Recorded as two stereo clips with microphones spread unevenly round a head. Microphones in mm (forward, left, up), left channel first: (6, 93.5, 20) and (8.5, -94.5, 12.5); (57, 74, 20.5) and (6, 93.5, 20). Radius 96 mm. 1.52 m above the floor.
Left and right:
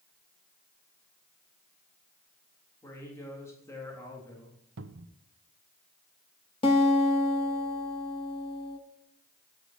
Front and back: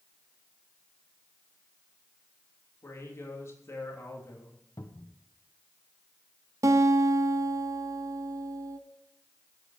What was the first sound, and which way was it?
A man speaking, 15° left.